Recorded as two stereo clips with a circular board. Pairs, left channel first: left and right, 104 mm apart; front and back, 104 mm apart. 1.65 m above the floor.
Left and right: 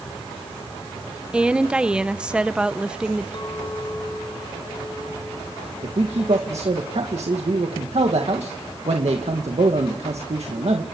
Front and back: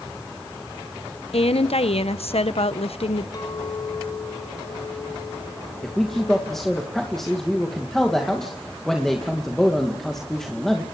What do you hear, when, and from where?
1.3 s a woman speaking: 10° right, 1.0 m
3.3 s a clink: 50° left, 6 m
5.8 s a man speaking: 85° right, 2 m